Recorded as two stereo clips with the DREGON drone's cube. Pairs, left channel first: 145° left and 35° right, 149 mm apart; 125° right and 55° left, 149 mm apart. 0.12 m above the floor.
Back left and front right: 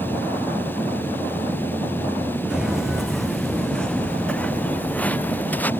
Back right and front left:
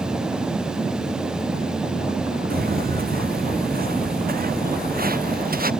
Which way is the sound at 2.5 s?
50° left.